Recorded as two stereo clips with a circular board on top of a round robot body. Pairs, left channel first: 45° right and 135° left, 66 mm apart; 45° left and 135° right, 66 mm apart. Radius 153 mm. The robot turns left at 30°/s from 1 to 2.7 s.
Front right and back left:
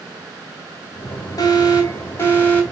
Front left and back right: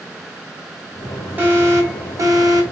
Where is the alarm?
75° right, 2.5 m; by 2.6 s 110° right, 2.5 m.